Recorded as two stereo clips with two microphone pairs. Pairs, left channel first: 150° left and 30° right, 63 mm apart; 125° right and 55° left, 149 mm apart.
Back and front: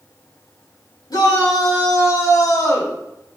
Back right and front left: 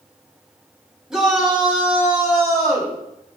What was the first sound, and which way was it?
A shout, 140° left.